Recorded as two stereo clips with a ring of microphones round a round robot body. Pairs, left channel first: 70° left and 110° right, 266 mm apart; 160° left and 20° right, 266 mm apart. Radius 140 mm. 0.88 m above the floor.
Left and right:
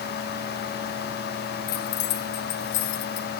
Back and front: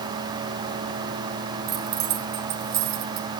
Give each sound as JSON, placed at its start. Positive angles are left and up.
{"t": 1.7, "sound": "keys jangling", "azimuth_deg": 30, "distance_m": 3.0}